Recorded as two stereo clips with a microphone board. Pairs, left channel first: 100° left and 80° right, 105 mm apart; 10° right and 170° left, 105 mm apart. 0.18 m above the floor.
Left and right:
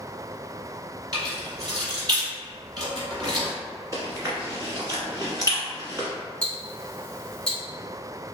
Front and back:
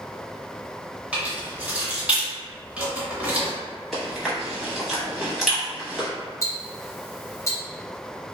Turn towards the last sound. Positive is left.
turn(degrees=25)